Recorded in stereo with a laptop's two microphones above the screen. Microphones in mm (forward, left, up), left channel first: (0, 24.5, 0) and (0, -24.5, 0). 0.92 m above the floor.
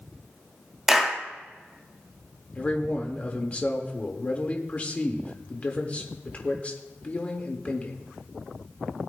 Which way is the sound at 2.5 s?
30° left (ahead or behind).